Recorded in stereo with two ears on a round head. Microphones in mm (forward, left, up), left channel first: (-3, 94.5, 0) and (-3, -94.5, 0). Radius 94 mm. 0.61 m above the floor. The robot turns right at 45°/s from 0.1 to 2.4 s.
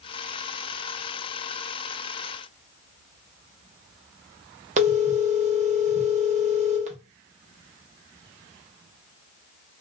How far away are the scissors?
No scissors in this recording.